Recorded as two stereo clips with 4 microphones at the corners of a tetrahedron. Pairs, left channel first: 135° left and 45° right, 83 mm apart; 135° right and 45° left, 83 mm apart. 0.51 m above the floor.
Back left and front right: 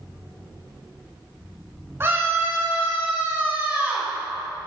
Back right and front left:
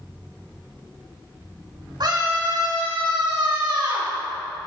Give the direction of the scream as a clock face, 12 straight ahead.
11 o'clock.